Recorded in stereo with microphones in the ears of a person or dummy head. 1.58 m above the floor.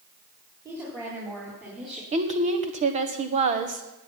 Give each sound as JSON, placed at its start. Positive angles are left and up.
{"t": 0.7, "sound": "a woman speaking", "side_deg": -20, "distance_m": 3.5}
{"t": 2.1, "sound": "a woman speaking", "side_deg": -35, "distance_m": 1.4}